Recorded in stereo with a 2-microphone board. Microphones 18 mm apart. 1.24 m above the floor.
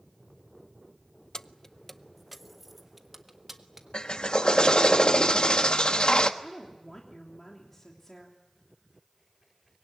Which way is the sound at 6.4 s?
20° left (ahead or behind).